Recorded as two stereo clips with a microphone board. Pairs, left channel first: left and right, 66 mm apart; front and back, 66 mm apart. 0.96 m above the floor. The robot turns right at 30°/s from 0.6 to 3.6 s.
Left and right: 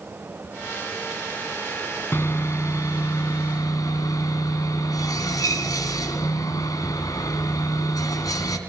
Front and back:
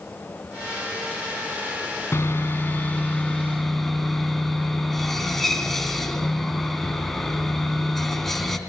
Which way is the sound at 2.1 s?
40° left.